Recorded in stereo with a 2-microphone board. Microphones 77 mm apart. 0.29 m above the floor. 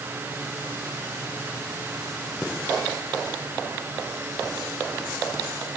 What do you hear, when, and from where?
Only background noise.